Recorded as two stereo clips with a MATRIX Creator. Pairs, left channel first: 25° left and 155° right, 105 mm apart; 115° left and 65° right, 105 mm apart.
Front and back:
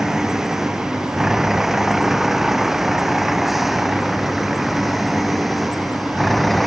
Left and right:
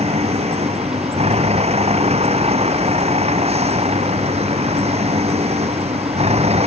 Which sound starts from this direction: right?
A vehicle, at 0.0 s.